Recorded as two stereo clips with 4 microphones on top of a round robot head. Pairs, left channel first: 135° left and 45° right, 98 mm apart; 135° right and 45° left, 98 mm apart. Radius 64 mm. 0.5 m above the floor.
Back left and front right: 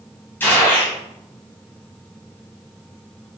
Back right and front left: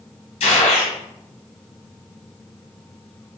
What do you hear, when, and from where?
0.4 s a gunshot: 155° right, 3 m